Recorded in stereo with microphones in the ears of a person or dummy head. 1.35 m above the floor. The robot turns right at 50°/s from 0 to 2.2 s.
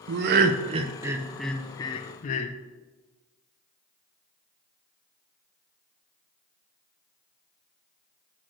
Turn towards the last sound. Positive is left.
turn(degrees=40)  # may be behind; listen again after turning